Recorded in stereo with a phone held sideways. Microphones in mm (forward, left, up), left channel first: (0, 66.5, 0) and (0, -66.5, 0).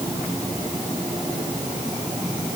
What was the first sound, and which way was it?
Only background noise.